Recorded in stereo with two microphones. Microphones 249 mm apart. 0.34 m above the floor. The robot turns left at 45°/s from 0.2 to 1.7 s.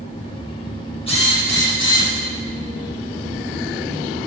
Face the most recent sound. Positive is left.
turn(degrees=50)  # may be behind; listen again after turning